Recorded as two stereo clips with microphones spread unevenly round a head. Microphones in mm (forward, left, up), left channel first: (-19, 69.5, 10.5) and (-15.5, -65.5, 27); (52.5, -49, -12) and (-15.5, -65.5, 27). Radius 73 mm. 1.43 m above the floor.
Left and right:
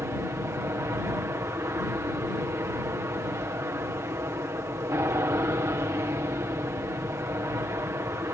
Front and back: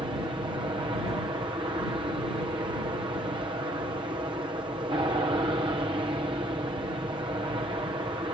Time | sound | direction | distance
0.0 | an aircraft | 155° right | ?